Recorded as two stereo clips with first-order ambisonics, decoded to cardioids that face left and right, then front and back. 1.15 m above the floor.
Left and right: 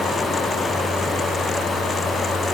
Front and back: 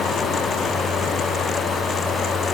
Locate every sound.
Only background noise.